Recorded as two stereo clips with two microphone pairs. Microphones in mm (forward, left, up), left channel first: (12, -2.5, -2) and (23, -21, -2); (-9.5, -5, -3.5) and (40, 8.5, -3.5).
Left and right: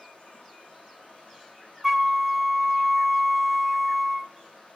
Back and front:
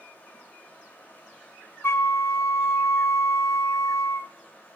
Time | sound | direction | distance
0.0 | running water | 140° left | 5 m
1.8 | a flute | 140° right | 0.7 m